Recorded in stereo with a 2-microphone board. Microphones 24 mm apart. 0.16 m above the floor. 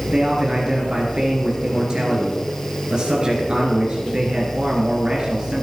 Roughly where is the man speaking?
Right.